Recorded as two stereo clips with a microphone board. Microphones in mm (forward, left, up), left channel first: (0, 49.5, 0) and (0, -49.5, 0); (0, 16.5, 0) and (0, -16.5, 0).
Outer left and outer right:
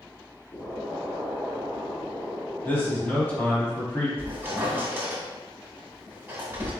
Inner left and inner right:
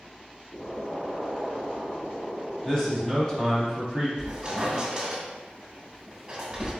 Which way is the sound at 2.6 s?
20° left (ahead or behind).